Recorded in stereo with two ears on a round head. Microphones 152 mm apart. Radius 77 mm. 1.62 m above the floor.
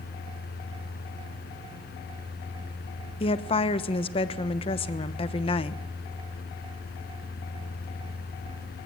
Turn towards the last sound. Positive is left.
turn(degrees=35)  # may be behind; listen again after turning